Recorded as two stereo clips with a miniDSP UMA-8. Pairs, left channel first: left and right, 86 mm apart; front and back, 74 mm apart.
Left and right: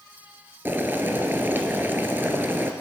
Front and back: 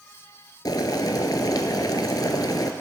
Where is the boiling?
25° right, 0.8 m.